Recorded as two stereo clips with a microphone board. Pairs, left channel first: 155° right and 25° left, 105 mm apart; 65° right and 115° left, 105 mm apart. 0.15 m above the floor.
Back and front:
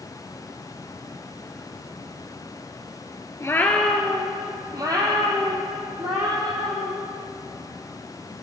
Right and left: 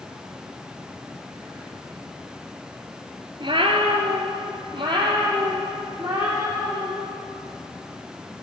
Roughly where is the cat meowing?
Behind left.